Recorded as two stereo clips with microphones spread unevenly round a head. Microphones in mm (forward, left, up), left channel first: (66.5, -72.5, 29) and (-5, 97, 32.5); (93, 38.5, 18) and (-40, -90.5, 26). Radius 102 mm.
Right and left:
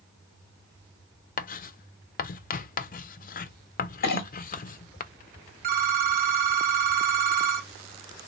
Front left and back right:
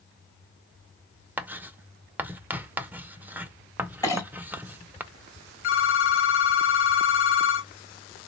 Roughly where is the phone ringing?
Left.